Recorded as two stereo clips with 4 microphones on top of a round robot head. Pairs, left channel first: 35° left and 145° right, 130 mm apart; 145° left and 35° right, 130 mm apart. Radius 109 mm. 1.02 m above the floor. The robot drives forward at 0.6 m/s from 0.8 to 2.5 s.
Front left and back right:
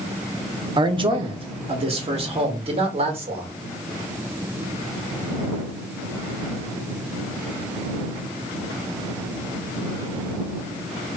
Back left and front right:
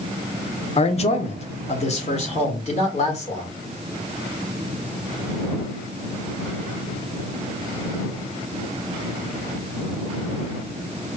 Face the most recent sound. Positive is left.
turn(degrees=175)